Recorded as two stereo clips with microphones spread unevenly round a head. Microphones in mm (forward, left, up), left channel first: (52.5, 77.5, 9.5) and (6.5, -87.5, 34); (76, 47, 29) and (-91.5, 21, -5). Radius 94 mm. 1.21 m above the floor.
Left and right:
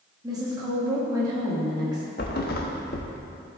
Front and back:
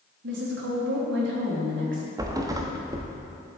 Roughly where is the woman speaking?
Behind.